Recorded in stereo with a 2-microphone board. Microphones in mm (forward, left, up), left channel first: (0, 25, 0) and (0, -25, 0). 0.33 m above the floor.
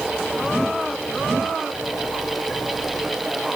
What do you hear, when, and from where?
Only background noise.